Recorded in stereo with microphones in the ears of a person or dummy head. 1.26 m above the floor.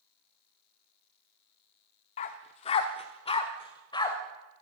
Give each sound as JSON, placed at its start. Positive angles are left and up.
{"t": 2.2, "sound": "a dog barking", "side_deg": 25, "distance_m": 0.8}